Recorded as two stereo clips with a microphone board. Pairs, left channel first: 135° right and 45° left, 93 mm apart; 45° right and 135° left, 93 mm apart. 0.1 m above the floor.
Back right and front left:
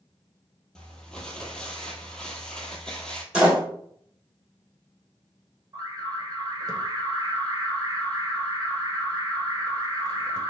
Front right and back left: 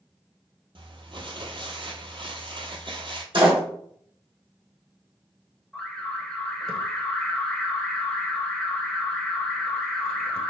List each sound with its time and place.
0.8 s crumpling: 145° left, 0.7 m
3.3 s a door slam: 125° left, 2.5 m
5.7 s an alarm: 35° left, 1.1 m